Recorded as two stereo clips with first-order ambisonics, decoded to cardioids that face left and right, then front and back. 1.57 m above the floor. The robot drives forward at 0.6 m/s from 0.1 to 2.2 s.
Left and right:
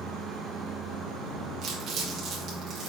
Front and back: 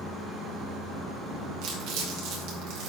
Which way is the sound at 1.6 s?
150° right.